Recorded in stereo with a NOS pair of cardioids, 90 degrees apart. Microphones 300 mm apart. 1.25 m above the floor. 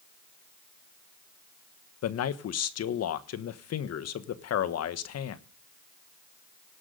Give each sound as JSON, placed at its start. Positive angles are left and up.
{"t": 2.0, "sound": "a man speaking", "azimuth_deg": 60, "distance_m": 1.3}